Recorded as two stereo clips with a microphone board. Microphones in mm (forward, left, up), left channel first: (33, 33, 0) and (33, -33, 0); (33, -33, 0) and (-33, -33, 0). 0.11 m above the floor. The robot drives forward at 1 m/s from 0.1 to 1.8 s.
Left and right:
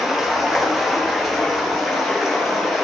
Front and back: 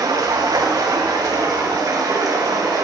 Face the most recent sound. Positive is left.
turn(degrees=-175)